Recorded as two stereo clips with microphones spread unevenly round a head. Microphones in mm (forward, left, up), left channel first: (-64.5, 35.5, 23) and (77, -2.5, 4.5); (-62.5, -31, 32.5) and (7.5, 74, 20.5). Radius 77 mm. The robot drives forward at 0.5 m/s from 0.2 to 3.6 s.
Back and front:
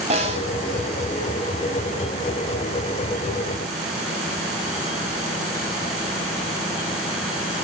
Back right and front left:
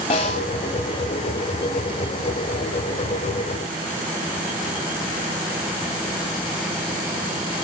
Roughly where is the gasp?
No gasp in this recording.